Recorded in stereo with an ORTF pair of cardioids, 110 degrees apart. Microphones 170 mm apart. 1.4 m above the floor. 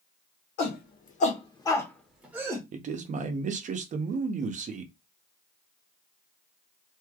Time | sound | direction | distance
0.6 | a shout | 65° left | 1.4 m
2.7 | a man speaking | 45° right | 0.8 m